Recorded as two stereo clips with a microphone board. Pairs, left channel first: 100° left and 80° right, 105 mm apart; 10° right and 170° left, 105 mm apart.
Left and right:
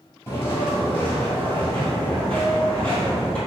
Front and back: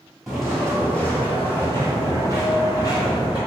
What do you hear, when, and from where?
0.3 s footsteps: 80° left, 1.4 m; by 3.4 s 20° left, 2.5 m